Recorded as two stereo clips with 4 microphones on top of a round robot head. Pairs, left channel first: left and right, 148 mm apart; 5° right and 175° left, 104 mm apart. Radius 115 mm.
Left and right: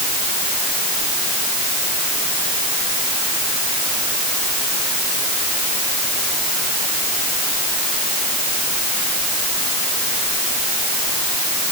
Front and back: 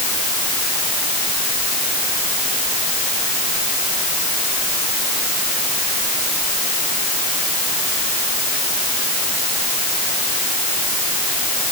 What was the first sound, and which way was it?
Only background noise.